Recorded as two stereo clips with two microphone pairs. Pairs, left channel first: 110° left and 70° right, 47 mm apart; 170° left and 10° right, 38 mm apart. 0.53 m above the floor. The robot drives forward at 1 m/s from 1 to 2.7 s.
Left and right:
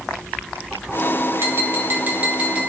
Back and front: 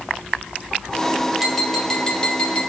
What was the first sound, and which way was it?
Tapping, 95° right.